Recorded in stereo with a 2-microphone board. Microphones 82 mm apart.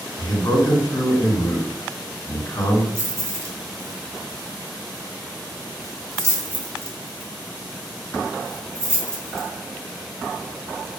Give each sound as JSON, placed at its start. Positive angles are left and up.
{"t": 0.2, "sound": "a man speaking", "side_deg": 45, "distance_m": 1.9}
{"t": 3.0, "sound": "keys jangling", "side_deg": -35, "distance_m": 0.7}